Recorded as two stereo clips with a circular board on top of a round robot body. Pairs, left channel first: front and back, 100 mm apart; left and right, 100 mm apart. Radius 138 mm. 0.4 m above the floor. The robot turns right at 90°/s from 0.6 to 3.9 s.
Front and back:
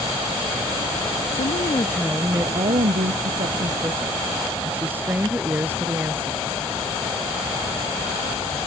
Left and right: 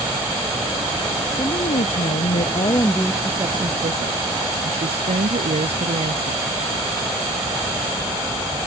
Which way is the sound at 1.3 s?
20° left.